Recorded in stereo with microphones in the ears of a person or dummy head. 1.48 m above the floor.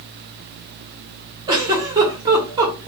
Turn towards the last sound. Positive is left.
turn(degrees=-20)  # may be behind; listen again after turning